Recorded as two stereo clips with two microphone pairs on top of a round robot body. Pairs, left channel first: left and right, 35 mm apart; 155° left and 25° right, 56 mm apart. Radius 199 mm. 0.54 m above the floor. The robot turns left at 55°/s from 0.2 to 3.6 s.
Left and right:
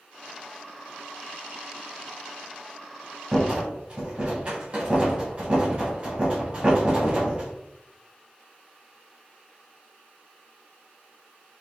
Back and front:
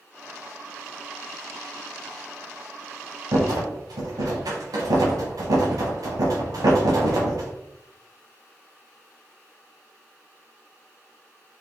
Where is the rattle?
10° right, 0.9 m; by 7.5 s 25° right, 0.9 m.